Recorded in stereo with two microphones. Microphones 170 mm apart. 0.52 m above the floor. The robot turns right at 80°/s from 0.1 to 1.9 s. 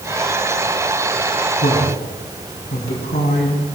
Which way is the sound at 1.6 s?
65° left (ahead or behind).